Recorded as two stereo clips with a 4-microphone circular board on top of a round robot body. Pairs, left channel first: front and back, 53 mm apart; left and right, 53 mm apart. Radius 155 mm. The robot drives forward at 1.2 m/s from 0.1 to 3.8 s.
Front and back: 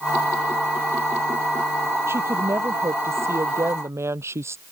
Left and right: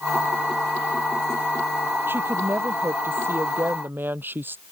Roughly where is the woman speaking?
Behind right.